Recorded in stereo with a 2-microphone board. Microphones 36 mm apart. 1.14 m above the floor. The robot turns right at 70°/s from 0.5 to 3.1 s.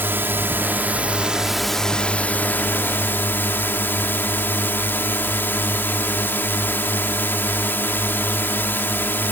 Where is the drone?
80° right; by 9.3 s 105° left.